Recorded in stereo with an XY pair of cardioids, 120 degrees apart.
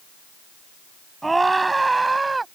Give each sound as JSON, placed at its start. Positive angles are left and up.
{"t": 1.2, "sound": "a scream", "azimuth_deg": -15}